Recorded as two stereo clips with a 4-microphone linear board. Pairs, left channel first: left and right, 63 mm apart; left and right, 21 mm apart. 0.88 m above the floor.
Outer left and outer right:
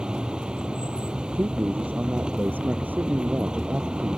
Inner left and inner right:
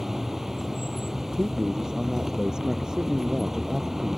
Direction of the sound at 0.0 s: 15° right (ahead or behind).